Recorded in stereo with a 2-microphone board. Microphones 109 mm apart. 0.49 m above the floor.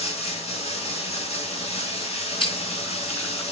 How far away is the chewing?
About 3.5 m.